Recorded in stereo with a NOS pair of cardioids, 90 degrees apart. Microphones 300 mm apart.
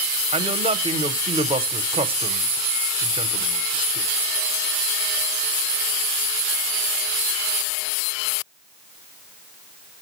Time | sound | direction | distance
0.3 | a man speaking | 20° right | 0.8 m